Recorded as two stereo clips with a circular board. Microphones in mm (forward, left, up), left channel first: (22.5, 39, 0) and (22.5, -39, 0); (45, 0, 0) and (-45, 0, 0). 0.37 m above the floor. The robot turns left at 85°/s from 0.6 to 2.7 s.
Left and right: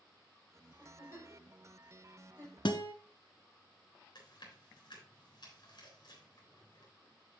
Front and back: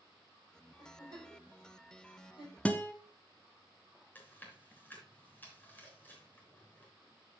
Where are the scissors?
I don't hear scissors.